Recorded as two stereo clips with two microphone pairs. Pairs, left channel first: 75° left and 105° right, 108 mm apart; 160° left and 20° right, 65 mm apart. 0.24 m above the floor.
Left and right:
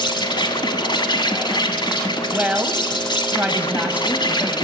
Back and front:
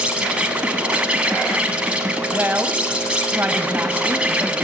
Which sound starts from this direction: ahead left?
An insect, at 0.0 s.